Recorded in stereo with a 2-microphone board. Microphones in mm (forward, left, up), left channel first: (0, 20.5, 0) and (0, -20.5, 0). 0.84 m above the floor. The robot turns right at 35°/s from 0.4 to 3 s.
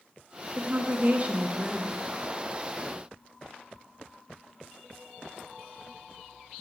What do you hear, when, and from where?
0.6 s a woman speaking: 75° right, 0.5 m; by 1.9 s 30° right, 0.5 m